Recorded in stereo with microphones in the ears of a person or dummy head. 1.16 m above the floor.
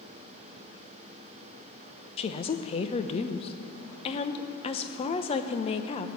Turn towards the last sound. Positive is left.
turn(degrees=30)  # may be behind; listen again after turning